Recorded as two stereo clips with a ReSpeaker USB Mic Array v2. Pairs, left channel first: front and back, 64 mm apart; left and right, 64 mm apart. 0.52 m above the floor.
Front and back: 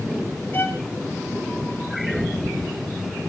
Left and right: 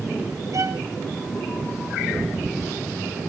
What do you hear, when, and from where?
0.5 s a violin: 60° right, 2 m